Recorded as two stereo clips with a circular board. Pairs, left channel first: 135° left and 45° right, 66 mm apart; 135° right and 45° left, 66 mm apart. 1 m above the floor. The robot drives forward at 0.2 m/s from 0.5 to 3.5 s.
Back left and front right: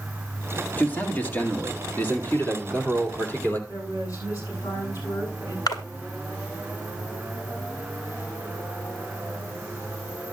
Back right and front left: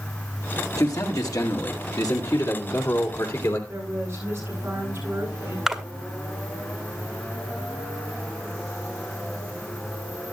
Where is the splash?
130° left, 1.3 m.